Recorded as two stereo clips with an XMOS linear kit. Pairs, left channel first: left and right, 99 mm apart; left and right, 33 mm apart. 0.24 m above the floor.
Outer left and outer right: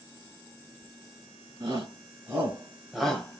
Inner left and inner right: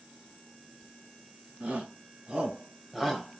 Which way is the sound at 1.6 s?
40° right (ahead or behind).